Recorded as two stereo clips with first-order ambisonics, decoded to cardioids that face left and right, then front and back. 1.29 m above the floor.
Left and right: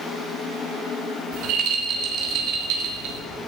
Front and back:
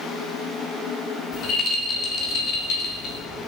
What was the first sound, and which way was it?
A rattle, 55° right.